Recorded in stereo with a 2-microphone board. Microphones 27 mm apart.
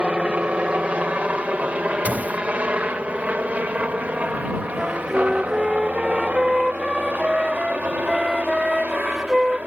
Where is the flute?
15° right (ahead or behind).